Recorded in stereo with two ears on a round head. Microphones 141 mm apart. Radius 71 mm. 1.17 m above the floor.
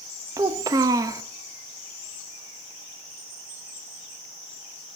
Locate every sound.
0.4 s a child speaking: 20° right (ahead or behind), 0.6 m